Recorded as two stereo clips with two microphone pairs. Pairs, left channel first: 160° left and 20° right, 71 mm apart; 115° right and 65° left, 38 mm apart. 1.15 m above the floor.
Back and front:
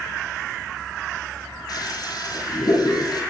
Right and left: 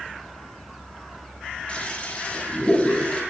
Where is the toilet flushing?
175° right, 9.5 m.